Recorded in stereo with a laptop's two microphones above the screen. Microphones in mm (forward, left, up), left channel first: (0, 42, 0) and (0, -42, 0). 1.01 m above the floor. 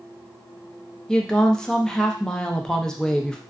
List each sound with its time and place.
1.1 s a woman speaking: 10° left (ahead or behind), 0.5 m